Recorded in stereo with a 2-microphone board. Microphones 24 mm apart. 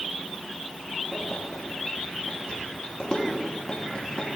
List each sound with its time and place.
1.1 s keys jangling: 40° left (ahead or behind), 3.5 m